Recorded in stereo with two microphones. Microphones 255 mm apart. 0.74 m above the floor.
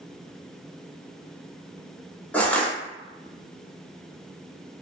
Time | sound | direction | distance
2.3 | crushing | 5° left (ahead or behind) | 0.5 m